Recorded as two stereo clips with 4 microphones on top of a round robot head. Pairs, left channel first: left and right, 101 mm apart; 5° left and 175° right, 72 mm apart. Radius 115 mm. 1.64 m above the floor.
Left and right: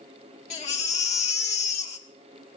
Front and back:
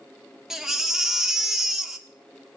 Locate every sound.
0.5 s a baby crying: 100° left, 1.3 m